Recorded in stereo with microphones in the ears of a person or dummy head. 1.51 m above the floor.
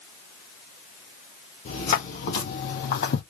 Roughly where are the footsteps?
Left.